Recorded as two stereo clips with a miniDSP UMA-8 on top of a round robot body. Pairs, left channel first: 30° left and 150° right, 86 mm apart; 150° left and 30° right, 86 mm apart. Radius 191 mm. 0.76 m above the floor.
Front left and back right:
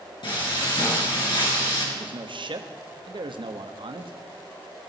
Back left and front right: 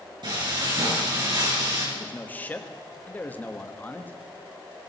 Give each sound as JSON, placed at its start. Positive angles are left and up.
{"t": 0.2, "sound": "frying", "azimuth_deg": 0, "distance_m": 4.5}
{"t": 1.9, "sound": "a man speaking", "azimuth_deg": -140, "distance_m": 1.2}